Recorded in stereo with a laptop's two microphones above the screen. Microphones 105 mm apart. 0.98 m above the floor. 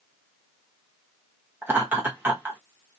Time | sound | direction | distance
1.6 | laughter | 20° right (ahead or behind) | 1.2 m